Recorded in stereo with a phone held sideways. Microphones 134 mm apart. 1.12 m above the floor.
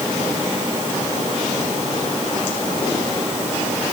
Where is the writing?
No writing in this recording.